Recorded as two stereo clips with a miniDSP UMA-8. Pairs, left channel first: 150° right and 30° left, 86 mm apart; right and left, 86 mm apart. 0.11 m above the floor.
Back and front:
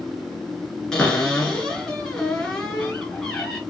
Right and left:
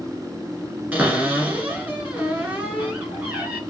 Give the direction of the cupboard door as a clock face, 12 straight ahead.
7 o'clock.